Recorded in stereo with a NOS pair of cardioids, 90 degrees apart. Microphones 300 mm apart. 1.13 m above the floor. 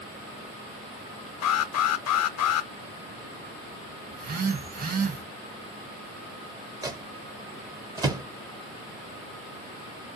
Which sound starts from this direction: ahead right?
A phone buzzing, at 4.1 s.